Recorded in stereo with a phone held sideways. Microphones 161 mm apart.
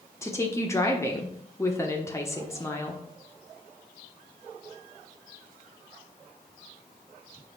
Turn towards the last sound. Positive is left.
turn(degrees=15)  # may be behind; listen again after turning